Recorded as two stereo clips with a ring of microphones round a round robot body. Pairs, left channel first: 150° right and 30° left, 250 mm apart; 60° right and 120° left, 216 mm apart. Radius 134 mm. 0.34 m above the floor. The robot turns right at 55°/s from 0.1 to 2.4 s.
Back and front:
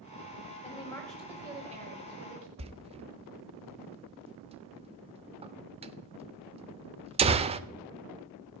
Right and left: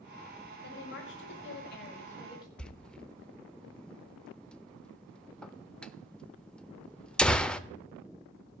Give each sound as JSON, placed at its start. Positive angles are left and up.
{"t": 0.6, "sound": "a woman speaking", "azimuth_deg": -90, "distance_m": 2.0}
{"t": 2.6, "sound": "a door slam", "azimuth_deg": 20, "distance_m": 0.8}